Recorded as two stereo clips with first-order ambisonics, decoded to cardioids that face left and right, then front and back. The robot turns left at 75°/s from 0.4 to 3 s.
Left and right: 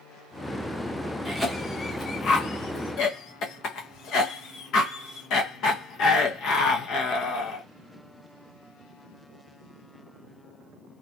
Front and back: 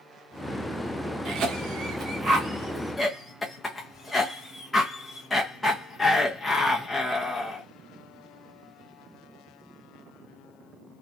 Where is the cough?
155° right, 0.6 m; by 7.7 s 75° left, 0.6 m.